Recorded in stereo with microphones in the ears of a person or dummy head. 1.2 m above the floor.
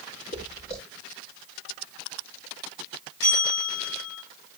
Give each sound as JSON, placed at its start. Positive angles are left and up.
{"t": 0.3, "sound": "footsteps", "side_deg": 45, "distance_m": 6.0}
{"t": 3.2, "sound": "a bell", "side_deg": 20, "distance_m": 8.5}